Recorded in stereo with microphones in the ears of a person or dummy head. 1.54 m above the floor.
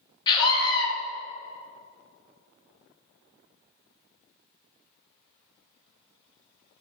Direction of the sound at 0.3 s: 25° left (ahead or behind).